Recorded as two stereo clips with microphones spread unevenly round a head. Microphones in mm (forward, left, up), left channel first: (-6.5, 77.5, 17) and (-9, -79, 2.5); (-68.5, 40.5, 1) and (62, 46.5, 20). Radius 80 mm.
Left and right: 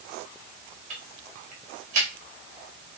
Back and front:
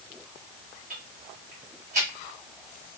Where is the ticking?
45° right, 1.9 m.